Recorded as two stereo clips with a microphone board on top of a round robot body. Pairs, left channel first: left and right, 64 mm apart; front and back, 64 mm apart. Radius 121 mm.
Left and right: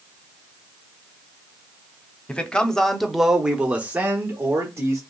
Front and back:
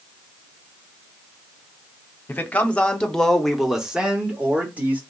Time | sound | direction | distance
2.3 | a man speaking | 35° left | 1.2 m